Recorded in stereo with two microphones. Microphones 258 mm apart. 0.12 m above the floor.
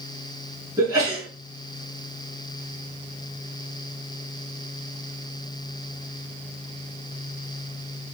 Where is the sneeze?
15° right (ahead or behind), 1.5 m.